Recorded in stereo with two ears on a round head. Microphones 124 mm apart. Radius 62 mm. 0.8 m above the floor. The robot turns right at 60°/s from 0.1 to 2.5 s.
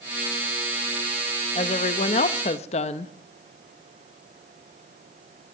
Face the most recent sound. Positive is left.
turn(degrees=110)